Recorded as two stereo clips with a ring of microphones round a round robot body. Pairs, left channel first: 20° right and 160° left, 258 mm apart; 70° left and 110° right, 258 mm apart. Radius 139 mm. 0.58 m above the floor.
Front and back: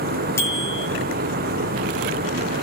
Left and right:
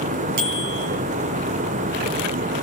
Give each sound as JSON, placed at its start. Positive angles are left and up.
{"t": 0.4, "sound": "a bicycle bell", "azimuth_deg": -105, "distance_m": 9.5}